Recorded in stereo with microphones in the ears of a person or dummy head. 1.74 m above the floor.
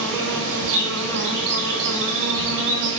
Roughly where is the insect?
Right.